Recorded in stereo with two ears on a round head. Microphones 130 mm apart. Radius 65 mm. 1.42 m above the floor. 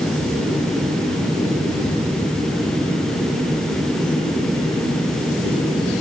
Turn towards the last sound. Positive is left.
No sound to turn to.